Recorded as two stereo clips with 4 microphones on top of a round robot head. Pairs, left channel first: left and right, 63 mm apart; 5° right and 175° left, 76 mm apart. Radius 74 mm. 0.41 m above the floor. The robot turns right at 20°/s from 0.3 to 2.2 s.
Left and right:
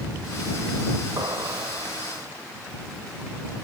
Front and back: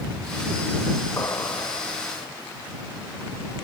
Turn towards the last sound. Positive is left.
turn(degrees=-40)